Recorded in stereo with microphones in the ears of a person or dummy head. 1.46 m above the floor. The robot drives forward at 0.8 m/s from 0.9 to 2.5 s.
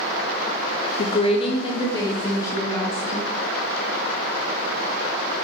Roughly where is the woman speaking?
Left.